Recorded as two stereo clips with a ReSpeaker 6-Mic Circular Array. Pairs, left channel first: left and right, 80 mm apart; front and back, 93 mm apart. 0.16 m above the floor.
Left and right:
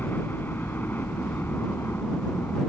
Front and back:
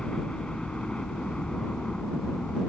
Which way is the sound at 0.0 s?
70° left.